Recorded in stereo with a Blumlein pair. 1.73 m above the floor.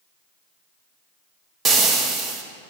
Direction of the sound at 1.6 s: 20° right.